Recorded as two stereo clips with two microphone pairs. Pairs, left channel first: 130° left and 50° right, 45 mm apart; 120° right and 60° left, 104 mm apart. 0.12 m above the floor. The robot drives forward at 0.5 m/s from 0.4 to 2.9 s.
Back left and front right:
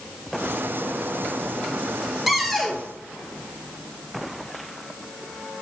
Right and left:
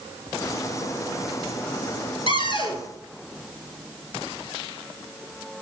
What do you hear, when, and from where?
2.3 s a cupboard door: 135° right, 0.9 m; by 2.8 s 150° right, 1.0 m